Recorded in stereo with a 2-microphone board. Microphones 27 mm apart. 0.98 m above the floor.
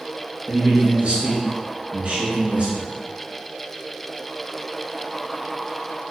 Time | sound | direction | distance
0.5 | a man speaking | 50° right (ahead or behind) | 1.0 m